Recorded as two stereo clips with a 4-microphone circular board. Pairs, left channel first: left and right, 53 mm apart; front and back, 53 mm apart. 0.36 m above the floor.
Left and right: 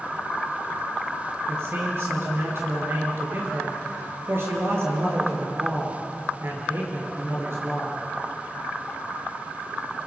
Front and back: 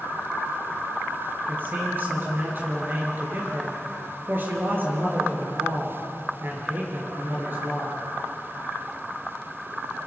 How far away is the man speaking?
About 5 m.